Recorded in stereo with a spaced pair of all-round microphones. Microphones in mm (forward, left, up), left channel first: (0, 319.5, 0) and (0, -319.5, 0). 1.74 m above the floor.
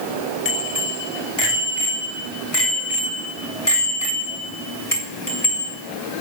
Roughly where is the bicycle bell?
Left.